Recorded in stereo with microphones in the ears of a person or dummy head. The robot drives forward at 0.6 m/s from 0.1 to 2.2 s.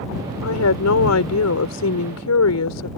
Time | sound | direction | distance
0.4 | a woman speaking | 85° left | ?